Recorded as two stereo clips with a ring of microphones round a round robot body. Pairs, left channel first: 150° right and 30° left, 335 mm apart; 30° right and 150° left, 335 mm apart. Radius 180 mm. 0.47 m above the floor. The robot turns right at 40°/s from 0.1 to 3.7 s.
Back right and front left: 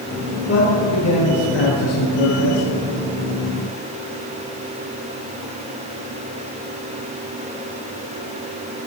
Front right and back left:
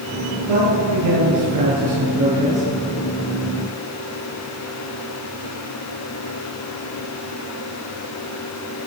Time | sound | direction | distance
0.5 | a man speaking | 150° left | 8 m